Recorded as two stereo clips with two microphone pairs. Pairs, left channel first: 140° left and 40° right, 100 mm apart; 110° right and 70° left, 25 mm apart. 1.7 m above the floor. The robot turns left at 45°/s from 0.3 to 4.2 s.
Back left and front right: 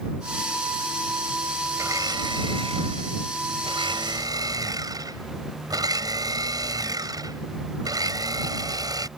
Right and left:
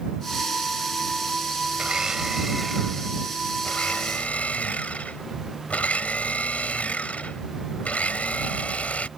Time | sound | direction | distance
1.8 | a blender | 20° left | ?